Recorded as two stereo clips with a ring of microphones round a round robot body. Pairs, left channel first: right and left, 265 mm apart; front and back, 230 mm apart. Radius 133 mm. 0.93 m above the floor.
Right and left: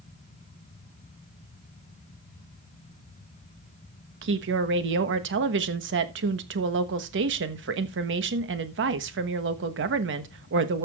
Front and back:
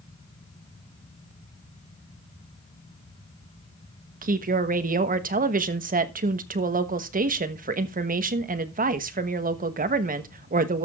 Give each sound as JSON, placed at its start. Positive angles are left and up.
{"t": 4.2, "sound": "a woman speaking", "azimuth_deg": 130, "distance_m": 1.2}